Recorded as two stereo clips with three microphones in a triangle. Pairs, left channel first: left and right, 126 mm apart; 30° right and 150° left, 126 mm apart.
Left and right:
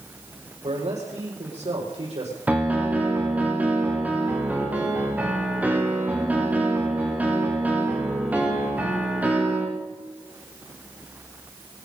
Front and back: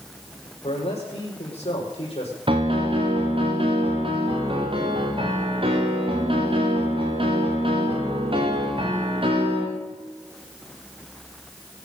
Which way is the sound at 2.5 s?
170° right.